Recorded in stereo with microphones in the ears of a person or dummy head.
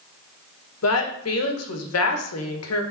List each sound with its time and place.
0.8 s a woman speaking: 75° left (ahead or behind), 1.4 m